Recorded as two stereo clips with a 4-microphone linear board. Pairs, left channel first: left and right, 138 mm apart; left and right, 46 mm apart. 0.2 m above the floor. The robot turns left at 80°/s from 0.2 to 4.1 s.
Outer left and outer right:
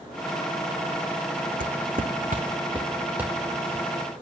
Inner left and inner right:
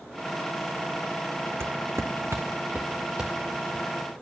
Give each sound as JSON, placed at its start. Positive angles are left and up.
{"t": 1.6, "sound": "footsteps", "side_deg": -80, "distance_m": 0.8}